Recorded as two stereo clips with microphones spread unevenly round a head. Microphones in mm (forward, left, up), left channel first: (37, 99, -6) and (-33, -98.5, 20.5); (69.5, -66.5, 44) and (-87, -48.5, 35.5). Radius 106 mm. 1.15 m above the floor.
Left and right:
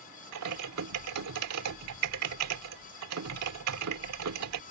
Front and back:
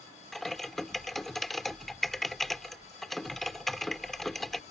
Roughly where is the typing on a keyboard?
Right.